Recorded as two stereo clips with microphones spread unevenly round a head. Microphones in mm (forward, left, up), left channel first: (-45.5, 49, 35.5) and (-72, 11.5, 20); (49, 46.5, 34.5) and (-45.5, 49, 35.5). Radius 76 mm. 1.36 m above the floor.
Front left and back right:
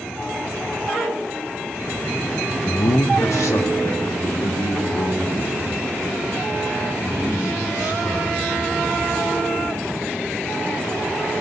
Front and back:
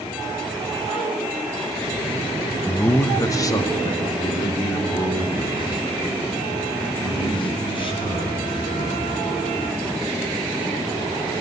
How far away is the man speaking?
About 1.2 m.